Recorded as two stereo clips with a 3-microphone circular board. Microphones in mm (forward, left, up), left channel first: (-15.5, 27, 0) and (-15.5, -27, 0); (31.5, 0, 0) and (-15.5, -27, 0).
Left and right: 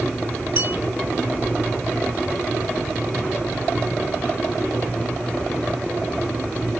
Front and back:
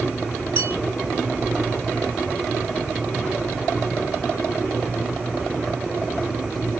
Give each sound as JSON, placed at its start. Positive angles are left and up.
{"t": 0.6, "sound": "a bell", "azimuth_deg": -125, "distance_m": 0.8}